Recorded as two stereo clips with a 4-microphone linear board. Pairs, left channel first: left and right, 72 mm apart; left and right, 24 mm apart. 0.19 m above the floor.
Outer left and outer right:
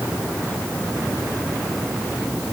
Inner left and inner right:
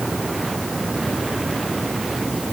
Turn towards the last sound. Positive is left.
No sound to turn to.